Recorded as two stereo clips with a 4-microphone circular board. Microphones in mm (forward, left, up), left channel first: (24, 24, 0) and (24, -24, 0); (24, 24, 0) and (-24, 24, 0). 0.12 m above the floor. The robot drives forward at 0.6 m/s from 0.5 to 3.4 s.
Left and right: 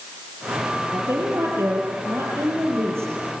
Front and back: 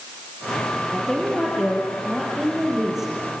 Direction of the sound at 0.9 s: 85° right.